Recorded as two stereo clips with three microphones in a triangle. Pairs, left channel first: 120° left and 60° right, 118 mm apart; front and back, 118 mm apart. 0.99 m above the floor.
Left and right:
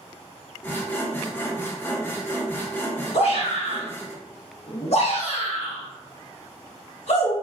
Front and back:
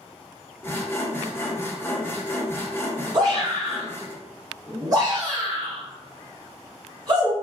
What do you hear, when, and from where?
0.6 s sawing: 60° left, 0.6 m
3.1 s a shout: 125° left, 0.8 m